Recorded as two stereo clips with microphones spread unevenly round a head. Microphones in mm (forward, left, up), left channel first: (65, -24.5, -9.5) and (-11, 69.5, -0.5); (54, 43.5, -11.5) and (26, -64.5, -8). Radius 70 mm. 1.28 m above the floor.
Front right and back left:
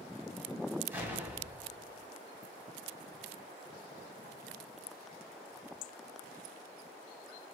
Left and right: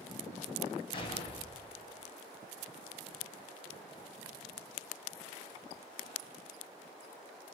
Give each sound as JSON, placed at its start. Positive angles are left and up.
{"t": 0.9, "sound": "an explosion", "azimuth_deg": 65, "distance_m": 1.5}